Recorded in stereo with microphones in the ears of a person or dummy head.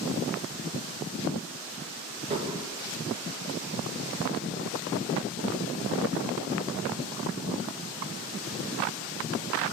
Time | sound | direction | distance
2.3 | dishes clattering | 30° right (ahead or behind) | 1.5 m